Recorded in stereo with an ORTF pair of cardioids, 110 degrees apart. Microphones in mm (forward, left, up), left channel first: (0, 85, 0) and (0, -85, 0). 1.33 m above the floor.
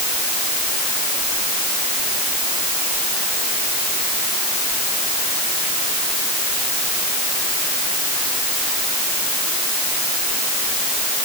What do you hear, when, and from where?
Only background noise.